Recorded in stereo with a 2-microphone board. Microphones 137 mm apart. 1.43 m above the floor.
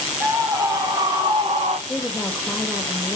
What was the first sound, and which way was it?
A scream, 25° right (ahead or behind).